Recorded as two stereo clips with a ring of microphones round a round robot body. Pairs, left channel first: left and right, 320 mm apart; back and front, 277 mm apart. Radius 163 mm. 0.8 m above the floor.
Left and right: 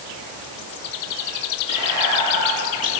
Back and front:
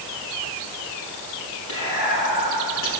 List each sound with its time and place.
1.7 s whispering: 120° right, 7.5 m